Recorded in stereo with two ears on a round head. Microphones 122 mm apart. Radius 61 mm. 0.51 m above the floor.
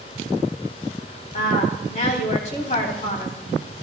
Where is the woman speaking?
50° left (ahead or behind), 3.5 m.